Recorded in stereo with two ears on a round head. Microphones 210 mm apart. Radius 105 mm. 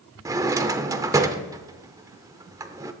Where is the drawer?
15° right (ahead or behind), 0.7 m.